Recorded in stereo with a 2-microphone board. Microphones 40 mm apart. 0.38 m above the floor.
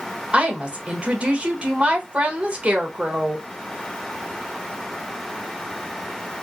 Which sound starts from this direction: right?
A woman speaking, at 0.3 s.